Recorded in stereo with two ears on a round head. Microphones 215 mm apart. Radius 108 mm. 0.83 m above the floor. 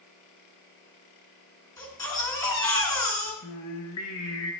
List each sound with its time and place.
1.8 s a baby crying: 15° left (ahead or behind), 4.5 m
3.4 s singing: 75° left (ahead or behind), 3 m